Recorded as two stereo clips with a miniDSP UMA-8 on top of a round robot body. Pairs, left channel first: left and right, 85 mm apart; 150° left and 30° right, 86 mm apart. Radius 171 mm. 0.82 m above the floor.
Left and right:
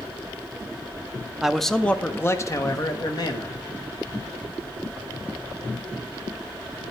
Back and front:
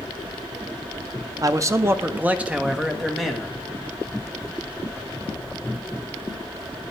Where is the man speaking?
10° right, 0.8 m; by 3.6 s 65° left, 1.5 m.